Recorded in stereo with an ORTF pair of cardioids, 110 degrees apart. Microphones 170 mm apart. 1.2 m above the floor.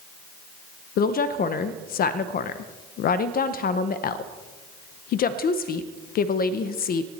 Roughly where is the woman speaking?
Ahead left.